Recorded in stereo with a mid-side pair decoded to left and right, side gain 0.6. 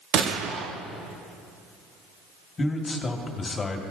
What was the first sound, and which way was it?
A gunshot, 60° right.